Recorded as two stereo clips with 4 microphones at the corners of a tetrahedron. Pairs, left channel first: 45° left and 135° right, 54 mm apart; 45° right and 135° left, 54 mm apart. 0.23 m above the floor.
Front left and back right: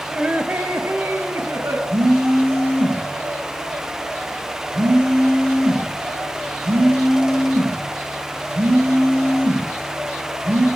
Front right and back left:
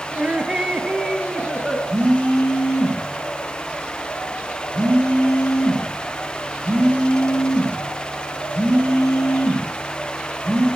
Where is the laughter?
170° left, 1.3 m; by 1.8 s 140° right, 2.5 m.